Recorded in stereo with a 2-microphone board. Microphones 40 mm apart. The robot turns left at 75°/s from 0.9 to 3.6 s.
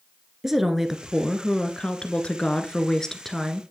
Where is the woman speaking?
5° right (ahead or behind), 1.3 m.